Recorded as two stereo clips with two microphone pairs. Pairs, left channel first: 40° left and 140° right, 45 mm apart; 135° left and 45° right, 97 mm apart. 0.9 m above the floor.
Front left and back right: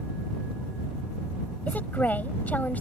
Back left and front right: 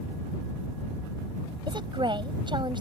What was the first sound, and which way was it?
A woman speaking, 10° right.